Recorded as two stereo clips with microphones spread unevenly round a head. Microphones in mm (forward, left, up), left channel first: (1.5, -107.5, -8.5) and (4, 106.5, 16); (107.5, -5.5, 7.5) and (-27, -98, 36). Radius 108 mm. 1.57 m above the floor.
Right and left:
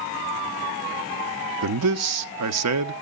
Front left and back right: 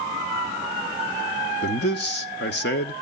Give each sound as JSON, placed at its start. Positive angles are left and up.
{"t": 1.6, "sound": "a man speaking", "azimuth_deg": 70, "distance_m": 0.6}